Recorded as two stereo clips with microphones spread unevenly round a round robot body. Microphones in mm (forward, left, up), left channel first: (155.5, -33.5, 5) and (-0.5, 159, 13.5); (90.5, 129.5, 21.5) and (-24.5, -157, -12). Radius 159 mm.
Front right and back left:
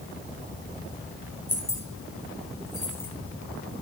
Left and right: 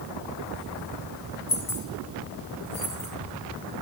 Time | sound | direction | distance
1.5 | keys jangling | 30° left | 2.5 m